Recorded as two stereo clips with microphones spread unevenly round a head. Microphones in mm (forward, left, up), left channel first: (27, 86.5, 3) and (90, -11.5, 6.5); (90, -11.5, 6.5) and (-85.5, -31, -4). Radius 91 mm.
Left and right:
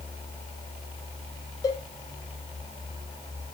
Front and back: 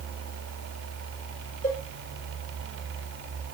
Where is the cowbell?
60° left, 4.5 m.